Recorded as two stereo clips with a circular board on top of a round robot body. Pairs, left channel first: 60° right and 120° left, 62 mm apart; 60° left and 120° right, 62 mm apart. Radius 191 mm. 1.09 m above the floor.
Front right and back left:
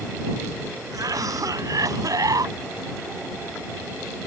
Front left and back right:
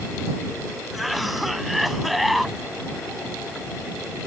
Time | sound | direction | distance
0.9 | a cough | 150° left | ?